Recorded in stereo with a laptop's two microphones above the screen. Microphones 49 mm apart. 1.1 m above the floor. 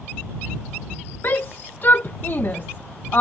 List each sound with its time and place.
1.2 s a shout: 45° left (ahead or behind)